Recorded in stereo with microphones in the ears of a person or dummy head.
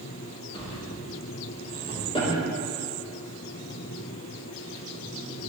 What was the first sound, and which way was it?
A drawer, 25° left (ahead or behind).